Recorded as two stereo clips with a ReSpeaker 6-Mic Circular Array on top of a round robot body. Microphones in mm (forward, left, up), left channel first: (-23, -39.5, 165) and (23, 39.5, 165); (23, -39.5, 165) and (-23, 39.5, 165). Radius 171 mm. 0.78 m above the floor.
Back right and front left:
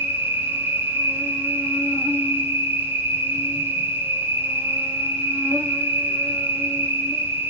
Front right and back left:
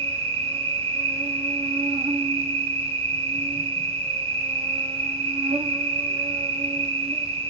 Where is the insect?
130° left, 0.8 m.